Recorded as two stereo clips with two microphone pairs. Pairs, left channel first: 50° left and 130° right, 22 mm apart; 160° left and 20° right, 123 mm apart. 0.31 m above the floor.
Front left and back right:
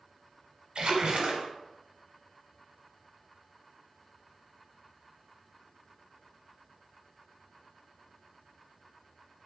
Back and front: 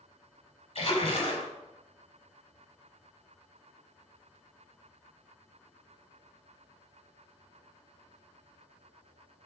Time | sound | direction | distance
0.8 | a splash | 165° right | 0.9 m